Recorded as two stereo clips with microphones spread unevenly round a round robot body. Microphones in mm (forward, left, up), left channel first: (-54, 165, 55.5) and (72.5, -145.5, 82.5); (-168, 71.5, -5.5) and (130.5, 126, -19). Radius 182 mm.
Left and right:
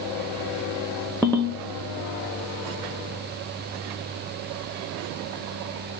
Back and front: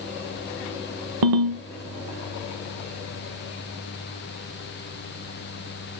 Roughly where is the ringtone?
Ahead left.